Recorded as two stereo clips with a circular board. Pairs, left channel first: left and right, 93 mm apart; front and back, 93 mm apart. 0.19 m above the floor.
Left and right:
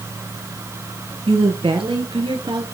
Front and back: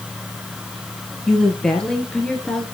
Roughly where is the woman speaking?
Right.